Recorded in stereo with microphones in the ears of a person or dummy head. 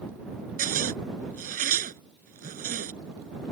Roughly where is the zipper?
Right.